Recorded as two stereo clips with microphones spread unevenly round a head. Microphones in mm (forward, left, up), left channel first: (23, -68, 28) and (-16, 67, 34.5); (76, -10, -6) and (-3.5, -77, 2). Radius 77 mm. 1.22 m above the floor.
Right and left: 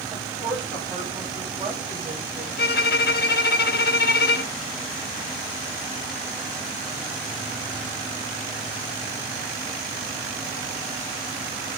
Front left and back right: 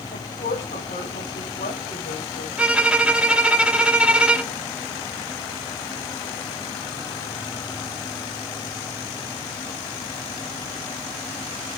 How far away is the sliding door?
No sliding door in this recording.